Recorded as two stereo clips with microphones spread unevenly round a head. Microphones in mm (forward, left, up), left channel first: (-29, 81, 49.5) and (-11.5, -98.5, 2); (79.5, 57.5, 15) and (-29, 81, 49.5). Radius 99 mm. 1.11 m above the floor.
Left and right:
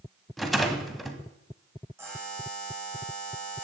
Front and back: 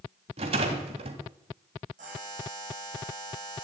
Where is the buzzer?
160° right, 10 m.